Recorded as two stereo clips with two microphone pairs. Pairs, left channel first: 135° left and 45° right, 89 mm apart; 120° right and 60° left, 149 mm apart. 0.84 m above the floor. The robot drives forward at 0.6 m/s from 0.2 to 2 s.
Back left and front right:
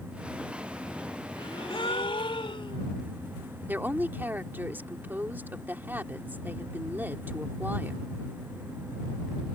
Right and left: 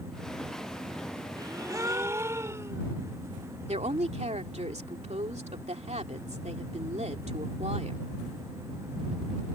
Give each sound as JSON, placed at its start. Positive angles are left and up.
{"t": 1.4, "sound": "a gasp", "azimuth_deg": 120}
{"t": 3.7, "sound": "a woman speaking", "azimuth_deg": 20}